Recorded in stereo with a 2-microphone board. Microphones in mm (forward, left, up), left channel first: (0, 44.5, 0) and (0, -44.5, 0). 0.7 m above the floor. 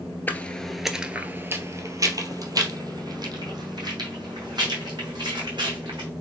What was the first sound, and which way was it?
Footsteps, 20° left (ahead or behind).